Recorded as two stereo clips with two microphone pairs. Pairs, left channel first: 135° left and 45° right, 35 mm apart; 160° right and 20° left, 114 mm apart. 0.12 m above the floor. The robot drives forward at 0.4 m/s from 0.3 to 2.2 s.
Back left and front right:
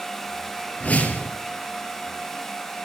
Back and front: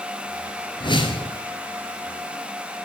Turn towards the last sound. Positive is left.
turn(degrees=170)